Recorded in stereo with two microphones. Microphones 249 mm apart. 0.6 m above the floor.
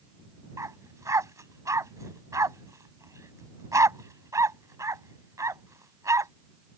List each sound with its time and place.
0.6 s a dog barking: 15° right (ahead or behind)